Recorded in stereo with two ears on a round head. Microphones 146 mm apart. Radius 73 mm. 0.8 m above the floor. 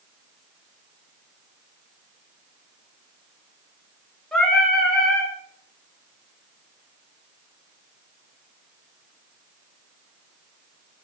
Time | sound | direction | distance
4.3 | singing | 5° left (ahead or behind) | 0.9 m